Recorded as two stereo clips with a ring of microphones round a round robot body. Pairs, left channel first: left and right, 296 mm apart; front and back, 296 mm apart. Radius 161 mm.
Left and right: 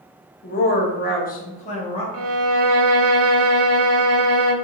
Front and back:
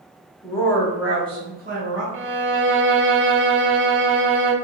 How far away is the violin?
About 0.7 m.